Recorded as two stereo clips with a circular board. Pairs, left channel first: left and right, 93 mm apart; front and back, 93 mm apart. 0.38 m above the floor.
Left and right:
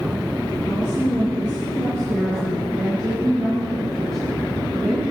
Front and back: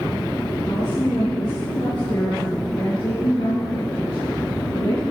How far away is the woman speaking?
About 6 m.